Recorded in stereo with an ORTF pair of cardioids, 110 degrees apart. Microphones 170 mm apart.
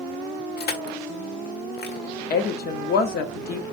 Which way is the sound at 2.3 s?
70° left.